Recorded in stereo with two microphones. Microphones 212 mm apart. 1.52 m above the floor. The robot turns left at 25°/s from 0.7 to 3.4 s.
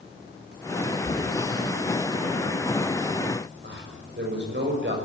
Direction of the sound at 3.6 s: 60° right (ahead or behind).